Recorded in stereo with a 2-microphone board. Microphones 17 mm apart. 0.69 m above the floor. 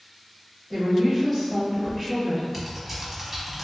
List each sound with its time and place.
0.7 s a woman speaking: 30° right (ahead or behind), 1.3 m
2.5 s typing on a keyboard: 15° right (ahead or behind), 0.9 m